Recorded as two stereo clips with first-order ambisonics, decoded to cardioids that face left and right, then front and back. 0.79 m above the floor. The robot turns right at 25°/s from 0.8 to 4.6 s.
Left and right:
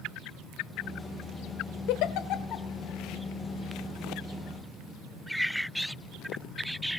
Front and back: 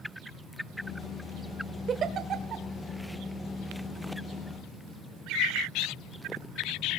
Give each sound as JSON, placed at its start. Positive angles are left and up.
{"t": 1.9, "sound": "a giggle", "azimuth_deg": 115, "distance_m": 1.3}